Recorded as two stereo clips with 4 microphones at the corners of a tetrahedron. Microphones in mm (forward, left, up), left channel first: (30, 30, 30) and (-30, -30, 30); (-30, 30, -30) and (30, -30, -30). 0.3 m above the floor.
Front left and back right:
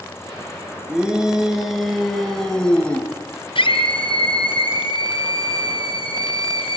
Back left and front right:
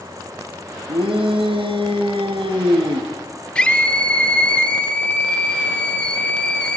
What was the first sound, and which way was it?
A shout, 55° right.